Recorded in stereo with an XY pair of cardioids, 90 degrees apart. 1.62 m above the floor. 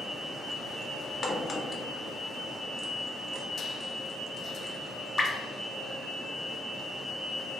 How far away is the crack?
About 0.5 m.